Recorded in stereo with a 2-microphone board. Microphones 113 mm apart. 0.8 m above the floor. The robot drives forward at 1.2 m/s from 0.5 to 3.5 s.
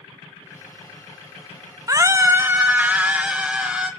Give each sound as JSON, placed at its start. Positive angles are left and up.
{"t": 1.9, "sound": "a scream", "side_deg": -30, "distance_m": 0.7}